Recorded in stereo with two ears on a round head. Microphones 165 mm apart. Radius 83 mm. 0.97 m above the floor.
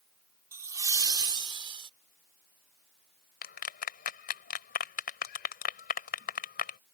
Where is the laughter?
15° right (ahead or behind); by 1.9 s 30° right (ahead or behind).